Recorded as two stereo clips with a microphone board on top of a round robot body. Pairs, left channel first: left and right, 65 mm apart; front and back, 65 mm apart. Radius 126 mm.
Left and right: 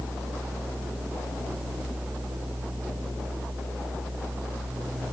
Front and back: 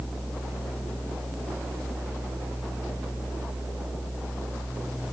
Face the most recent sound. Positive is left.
No sound to turn to.